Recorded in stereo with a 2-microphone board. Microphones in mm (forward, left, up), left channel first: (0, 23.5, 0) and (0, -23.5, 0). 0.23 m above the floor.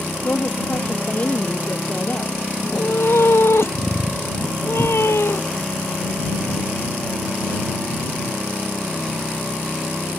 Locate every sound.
0.2 s a woman speaking: 35° left (ahead or behind)
2.6 s a cat meowing: 65° left (ahead or behind)